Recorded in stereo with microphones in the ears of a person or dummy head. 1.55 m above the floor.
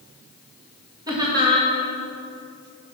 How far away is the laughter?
About 2.0 m.